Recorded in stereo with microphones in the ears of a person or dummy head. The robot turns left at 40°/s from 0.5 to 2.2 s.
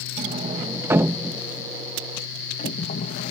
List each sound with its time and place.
0.2 s a sliding door: 35° right (ahead or behind); by 3.3 s 30° left (ahead or behind)